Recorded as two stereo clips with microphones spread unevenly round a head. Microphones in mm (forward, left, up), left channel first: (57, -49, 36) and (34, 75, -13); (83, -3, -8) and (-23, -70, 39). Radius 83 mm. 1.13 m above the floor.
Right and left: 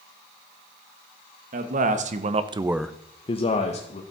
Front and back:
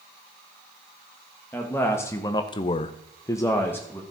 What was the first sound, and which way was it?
A man speaking, 110° left.